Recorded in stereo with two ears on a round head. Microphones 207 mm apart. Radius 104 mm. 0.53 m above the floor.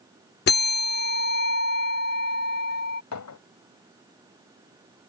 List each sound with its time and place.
0.5 s a bell: 45° left (ahead or behind)
3.1 s a clink: 70° left (ahead or behind)